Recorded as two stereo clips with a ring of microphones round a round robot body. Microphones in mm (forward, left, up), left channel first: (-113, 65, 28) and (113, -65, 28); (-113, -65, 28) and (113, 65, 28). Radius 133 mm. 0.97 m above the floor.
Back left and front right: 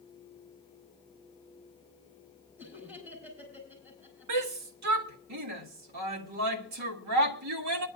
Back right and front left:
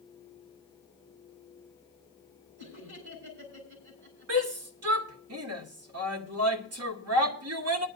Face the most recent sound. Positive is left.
turn(degrees=-5)